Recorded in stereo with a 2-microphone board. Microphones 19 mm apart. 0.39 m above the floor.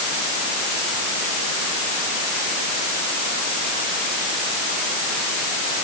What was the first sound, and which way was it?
Only background noise.